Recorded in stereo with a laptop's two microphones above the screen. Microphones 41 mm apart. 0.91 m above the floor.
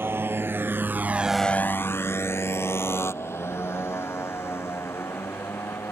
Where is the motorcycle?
65° right (ahead or behind); by 5.9 s 80° left.